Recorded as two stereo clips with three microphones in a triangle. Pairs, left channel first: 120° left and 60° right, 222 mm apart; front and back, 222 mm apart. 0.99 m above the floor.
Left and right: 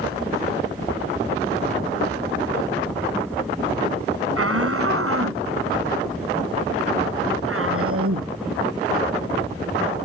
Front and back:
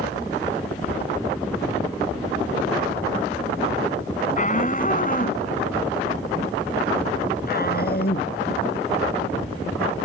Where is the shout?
55° right; by 10.0 s 45° right.